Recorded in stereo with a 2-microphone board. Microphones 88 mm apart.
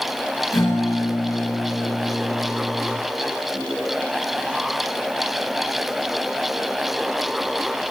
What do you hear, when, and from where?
0.5 s a guitar: 40° left (ahead or behind), 6.5 m